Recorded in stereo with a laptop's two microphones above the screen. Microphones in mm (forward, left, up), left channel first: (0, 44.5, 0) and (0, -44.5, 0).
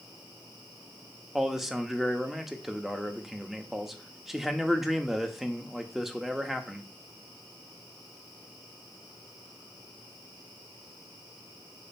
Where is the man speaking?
Centre (ahead or behind), 1.1 m.